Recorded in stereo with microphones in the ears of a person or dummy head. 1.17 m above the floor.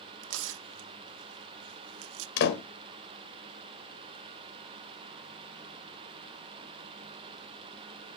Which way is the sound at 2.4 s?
65° left (ahead or behind).